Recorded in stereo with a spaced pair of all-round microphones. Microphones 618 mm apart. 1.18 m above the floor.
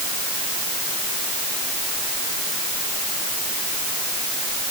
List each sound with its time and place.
Only background noise.